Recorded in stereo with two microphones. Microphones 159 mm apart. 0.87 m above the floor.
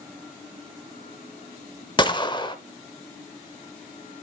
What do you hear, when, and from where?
2.0 s a gunshot: 30° left (ahead or behind), 0.7 m